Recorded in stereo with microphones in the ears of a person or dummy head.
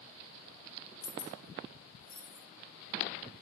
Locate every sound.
1.0 s keys jangling: 55° left (ahead or behind), 0.9 m; by 2.4 s 75° left (ahead or behind), 1.7 m